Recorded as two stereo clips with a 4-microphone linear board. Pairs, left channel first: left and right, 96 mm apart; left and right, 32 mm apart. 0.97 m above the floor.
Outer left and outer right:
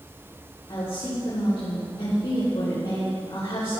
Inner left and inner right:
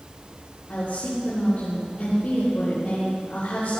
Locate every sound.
0.7 s a woman speaking: 75° left (ahead or behind), 4.5 m